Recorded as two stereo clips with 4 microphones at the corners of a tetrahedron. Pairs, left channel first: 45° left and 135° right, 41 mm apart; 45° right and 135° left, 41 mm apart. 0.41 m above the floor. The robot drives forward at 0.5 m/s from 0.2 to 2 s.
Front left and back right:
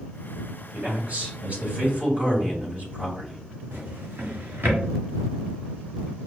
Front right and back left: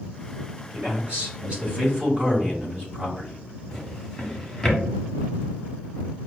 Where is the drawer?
130° right, 1.0 m.